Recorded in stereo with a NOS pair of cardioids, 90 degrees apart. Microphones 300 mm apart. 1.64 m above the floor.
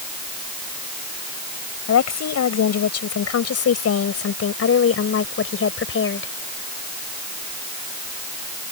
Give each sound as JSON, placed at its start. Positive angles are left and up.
{"t": 1.9, "sound": "a woman speaking", "azimuth_deg": 60}